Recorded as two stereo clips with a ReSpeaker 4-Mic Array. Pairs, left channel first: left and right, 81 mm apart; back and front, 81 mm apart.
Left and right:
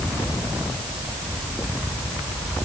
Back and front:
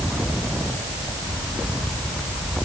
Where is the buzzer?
I don't hear a buzzer.